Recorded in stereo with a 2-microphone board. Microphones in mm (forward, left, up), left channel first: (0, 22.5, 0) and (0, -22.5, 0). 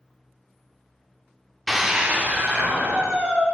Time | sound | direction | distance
1.7 | a scream | 5° left (ahead or behind) | 0.8 m